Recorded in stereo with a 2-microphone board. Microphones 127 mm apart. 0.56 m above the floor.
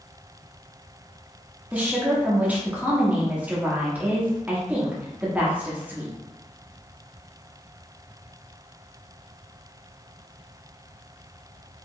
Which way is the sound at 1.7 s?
15° right (ahead or behind).